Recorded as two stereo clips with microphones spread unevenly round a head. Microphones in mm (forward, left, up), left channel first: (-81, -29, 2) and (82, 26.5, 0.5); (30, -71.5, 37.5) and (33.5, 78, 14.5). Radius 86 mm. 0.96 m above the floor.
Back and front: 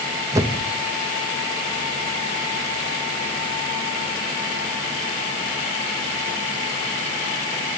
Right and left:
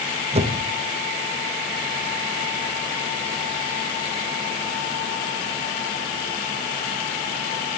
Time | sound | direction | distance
0.3 | a whoosh | 85° left | 1.0 m